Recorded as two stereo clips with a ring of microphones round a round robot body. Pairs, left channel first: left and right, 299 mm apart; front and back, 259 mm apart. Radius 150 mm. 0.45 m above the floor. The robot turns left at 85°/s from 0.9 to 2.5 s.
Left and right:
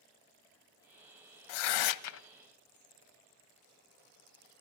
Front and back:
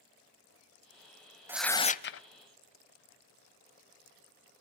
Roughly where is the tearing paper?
Left.